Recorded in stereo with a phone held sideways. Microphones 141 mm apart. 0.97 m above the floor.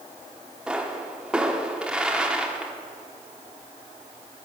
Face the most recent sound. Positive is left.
turn(degrees=-5)  # may be behind; listen again after turning